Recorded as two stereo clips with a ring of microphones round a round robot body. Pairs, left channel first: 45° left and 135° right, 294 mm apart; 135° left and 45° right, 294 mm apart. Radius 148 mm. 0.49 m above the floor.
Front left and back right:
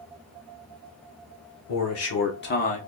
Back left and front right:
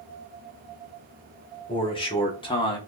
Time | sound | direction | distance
1.7 | a man speaking | 65° left | 1.6 m